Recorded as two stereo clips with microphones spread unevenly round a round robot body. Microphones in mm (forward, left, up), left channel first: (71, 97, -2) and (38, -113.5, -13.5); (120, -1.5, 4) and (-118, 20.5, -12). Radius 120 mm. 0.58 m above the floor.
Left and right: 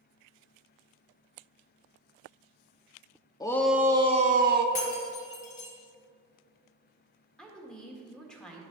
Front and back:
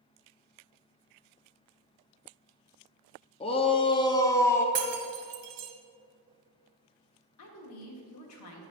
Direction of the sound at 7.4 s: 5° right.